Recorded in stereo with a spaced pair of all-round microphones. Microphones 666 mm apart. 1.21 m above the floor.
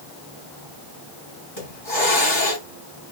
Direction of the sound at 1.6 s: 45° left (ahead or behind).